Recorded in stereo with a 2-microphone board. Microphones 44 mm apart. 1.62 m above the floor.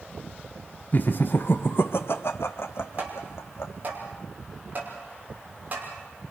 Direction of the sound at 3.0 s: 40° right (ahead or behind).